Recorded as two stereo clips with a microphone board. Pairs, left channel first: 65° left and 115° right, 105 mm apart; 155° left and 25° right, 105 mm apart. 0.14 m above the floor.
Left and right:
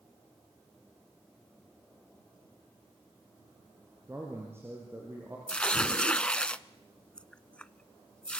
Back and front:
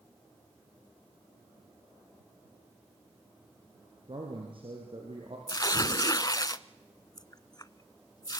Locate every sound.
4.1 s a man speaking: 50° right, 3.5 m; by 5.4 s 45° right, 4.5 m
5.5 s tearing paper: 140° left, 0.6 m